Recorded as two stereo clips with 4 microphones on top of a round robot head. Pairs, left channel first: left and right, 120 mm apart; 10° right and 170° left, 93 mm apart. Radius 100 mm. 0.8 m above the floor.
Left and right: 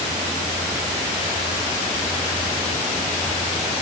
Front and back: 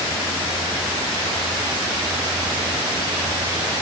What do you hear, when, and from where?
Only background noise.